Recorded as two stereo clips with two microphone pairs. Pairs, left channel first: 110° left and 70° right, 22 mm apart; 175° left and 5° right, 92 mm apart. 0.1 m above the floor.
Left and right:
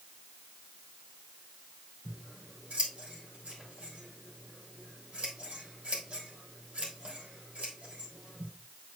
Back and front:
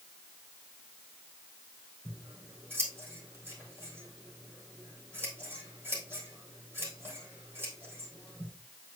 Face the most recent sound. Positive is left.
turn(degrees=-70)